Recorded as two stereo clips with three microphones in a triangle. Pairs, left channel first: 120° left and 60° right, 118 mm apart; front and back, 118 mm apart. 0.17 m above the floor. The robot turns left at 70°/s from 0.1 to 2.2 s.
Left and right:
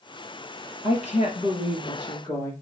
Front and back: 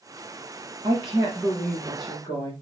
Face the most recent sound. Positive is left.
turn(degrees=55)